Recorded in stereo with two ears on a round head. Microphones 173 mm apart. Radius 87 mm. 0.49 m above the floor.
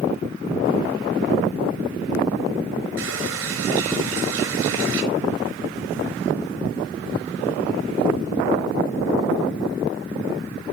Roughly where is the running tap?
Right.